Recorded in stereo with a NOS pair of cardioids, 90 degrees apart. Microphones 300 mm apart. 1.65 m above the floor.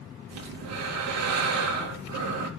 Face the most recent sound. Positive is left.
turn(degrees=-60)